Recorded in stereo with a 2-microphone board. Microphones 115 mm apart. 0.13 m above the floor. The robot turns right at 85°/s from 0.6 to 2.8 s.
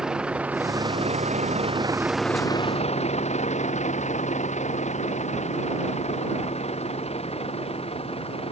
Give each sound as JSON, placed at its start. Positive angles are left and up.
{"t": 0.0, "sound": "a vehicle", "side_deg": -5}